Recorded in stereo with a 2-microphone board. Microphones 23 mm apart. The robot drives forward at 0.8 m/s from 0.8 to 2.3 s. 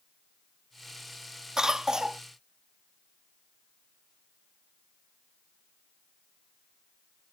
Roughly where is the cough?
Right.